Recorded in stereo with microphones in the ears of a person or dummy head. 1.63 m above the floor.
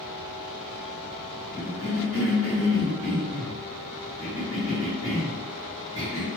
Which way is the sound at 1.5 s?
20° left (ahead or behind).